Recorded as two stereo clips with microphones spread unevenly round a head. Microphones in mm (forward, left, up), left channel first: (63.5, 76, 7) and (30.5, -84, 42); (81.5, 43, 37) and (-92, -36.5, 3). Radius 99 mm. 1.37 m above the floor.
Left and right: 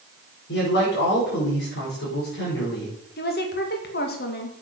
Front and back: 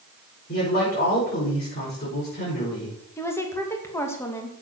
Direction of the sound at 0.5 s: 75° left.